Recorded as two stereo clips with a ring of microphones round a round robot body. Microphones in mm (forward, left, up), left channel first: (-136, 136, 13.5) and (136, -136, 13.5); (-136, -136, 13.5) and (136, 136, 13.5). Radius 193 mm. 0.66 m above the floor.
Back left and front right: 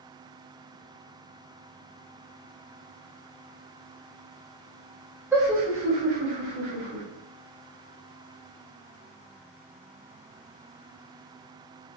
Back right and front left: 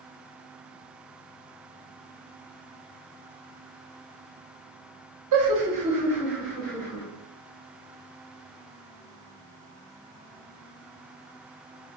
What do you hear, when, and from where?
5.3 s laughter: 40° left, 0.9 m; by 7.0 s 60° right, 1.8 m